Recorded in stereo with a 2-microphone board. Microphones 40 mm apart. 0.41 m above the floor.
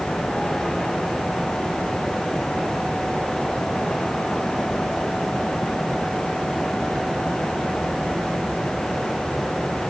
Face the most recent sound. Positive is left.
No sound to turn to.